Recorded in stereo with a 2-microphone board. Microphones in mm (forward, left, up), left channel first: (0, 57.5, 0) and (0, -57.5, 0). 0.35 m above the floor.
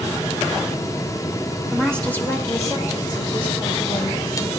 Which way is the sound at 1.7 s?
Centre (ahead or behind).